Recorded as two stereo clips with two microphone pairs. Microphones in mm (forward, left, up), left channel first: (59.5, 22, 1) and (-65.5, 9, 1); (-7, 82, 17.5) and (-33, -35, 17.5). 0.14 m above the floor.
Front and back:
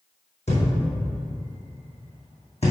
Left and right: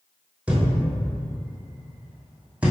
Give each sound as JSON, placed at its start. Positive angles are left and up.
{"t": 0.5, "sound": "a thud", "azimuth_deg": -20, "distance_m": 2.5}